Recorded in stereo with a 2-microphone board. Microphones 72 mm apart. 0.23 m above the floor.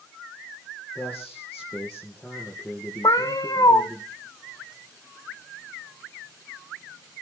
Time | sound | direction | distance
0.9 | a man speaking | 20° left (ahead or behind) | 3.5 m
3.0 | a cat meowing | 65° left (ahead or behind) | 1.7 m